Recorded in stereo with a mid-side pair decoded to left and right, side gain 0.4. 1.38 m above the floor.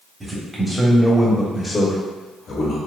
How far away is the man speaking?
About 1.3 m.